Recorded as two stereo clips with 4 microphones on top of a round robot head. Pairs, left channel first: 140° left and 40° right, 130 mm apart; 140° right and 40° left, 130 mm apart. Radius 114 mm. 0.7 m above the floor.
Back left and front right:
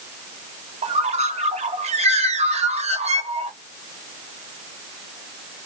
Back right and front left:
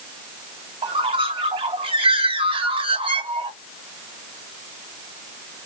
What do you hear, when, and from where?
0.8 s a bird: 5° right, 1.6 m